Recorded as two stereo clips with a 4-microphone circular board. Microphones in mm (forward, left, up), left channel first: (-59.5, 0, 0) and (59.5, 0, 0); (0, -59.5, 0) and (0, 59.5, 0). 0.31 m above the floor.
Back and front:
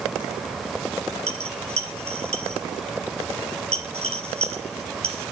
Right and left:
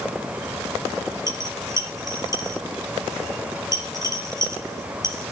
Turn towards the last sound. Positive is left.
turn(degrees=30)